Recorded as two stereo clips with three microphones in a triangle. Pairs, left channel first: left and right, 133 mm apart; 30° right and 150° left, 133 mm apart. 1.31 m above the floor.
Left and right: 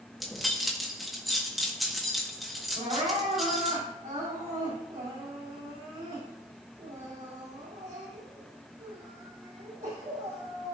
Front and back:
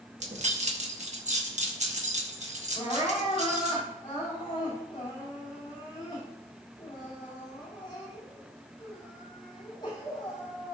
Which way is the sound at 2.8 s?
80° right.